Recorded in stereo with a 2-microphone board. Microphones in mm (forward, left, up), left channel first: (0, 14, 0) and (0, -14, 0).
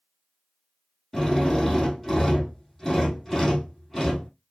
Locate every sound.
1.1 s a drill: 5° left (ahead or behind), 2.0 m